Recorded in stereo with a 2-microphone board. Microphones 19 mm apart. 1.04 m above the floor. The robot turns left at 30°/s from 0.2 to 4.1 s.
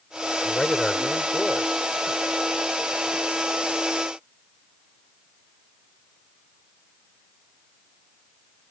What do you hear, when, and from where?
0.4 s a man speaking: 45° left; by 1.9 s 5° left